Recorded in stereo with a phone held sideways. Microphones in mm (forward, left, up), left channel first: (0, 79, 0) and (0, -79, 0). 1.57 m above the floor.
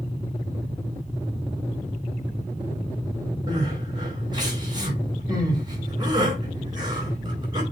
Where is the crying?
25° right (ahead or behind), 4 m.